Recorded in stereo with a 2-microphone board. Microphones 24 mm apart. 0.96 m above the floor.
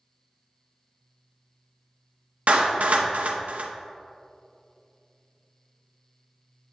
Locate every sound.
2.5 s a clap: 75° right (ahead or behind), 0.6 m